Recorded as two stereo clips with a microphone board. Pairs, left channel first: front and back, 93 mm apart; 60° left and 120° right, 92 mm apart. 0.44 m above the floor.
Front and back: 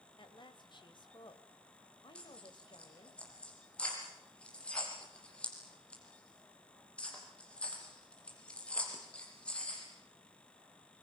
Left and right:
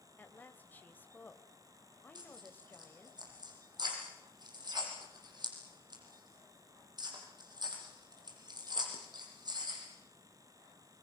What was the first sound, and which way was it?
A woman speaking, 10° right.